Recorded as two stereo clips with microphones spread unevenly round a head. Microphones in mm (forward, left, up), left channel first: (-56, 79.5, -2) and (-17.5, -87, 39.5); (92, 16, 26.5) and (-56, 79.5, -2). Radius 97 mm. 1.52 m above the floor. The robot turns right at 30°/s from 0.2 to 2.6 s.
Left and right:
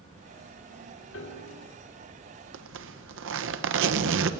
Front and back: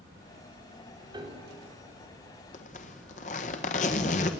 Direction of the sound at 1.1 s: 90° left.